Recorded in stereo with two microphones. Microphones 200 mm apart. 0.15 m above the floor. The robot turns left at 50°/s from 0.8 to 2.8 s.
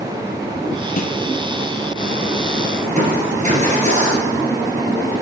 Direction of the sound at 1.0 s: 45° left (ahead or behind).